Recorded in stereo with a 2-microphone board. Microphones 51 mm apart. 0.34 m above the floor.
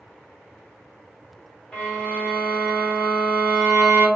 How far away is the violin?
About 1.1 m.